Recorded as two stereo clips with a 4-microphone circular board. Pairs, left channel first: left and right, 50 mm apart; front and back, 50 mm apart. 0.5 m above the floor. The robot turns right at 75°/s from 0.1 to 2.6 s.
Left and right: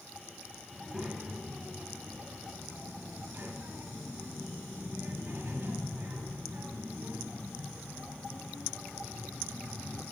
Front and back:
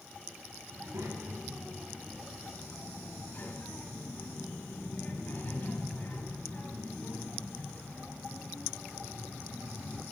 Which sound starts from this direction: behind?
A child speaking, at 0.7 s.